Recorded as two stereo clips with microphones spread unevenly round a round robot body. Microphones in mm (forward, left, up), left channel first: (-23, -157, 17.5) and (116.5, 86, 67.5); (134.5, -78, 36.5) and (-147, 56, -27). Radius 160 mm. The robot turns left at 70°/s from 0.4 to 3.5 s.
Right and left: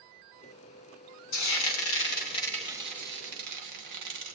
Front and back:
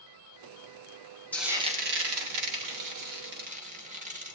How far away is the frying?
About 2.5 m.